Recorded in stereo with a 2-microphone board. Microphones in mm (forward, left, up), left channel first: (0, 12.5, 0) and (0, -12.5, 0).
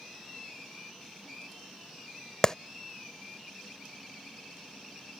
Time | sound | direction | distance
2.4 | a clap | 25° left (ahead or behind) | ?